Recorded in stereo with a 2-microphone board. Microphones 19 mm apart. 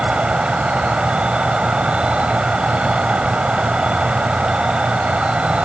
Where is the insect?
70° right (ahead or behind).